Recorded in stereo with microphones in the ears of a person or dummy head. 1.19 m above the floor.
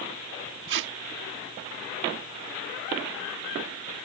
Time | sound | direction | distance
0.7 | tape being pulled | 65° right (ahead or behind) | ?